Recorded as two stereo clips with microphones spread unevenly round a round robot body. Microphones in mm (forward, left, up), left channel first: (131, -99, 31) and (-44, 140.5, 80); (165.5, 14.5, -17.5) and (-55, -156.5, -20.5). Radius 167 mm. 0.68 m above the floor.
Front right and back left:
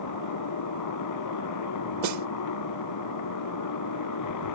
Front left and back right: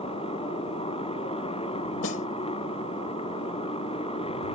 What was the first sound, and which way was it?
A motorcycle, 30° right.